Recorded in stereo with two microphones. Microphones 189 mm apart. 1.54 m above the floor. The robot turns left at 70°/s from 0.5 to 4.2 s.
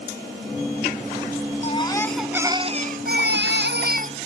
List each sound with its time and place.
1.6 s a baby crying: 40° left; by 4.2 s 140° right